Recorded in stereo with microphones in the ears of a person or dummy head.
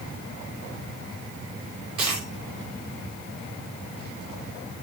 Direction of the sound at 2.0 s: 35° right (ahead or behind).